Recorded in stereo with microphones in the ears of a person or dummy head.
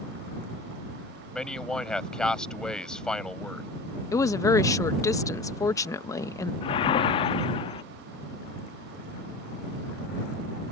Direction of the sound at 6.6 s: 35° left (ahead or behind).